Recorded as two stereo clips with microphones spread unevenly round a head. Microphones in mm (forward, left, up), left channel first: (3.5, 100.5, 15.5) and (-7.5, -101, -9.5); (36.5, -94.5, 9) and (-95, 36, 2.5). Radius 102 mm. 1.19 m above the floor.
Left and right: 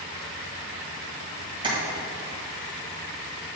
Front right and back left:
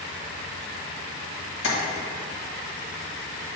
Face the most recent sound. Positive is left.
turn(degrees=-25)